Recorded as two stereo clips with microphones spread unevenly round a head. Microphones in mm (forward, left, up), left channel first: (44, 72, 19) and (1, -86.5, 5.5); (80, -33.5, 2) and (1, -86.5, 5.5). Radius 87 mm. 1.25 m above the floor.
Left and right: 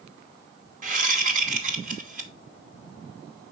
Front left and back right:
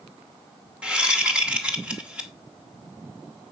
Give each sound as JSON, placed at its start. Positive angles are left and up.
{"t": 0.8, "sound": "a whoosh", "azimuth_deg": -65, "distance_m": 2.5}